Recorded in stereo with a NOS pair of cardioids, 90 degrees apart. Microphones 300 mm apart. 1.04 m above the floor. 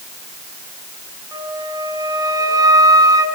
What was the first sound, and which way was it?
A flute, 15° right.